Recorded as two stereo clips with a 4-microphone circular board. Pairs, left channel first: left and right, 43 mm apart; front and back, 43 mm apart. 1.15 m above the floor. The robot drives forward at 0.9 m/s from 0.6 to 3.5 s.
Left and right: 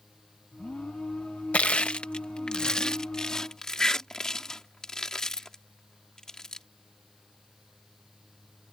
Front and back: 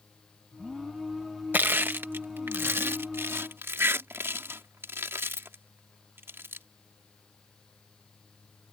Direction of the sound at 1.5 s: 145° left.